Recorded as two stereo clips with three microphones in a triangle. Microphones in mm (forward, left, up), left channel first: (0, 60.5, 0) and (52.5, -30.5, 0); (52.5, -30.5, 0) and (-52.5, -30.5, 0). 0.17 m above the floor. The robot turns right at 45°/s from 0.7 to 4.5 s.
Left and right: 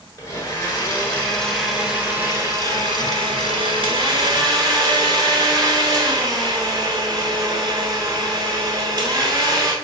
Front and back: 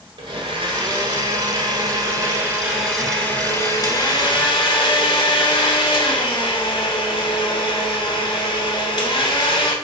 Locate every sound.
0.2 s a blender: 170° left, 1.3 m; by 9.7 s 15° right, 1.3 m